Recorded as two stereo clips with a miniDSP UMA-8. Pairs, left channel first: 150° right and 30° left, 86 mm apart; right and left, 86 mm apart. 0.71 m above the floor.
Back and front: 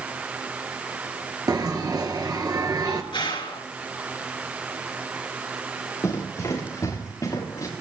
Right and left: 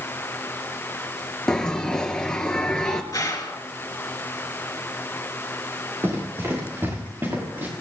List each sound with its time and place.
1.5 s a bell: 10° right, 1.9 m
3.1 s a gunshot: 135° right, 3.5 m
6.0 s running footsteps: 150° left, 8 m; by 7.7 s 160° left, 7 m